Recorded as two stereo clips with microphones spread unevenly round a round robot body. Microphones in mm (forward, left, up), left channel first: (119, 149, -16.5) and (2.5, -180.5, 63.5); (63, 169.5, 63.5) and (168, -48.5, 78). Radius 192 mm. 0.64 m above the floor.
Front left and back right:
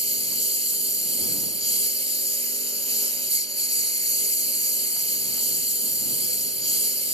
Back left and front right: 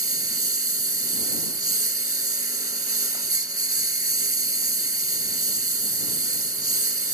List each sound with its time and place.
0.0 s a lawn mower: 35° right